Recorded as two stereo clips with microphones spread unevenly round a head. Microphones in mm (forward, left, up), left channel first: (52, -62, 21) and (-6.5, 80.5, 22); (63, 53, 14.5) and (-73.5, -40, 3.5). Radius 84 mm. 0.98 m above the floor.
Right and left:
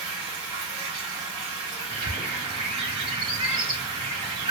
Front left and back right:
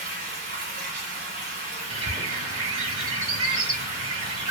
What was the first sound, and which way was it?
Running water, 175° left.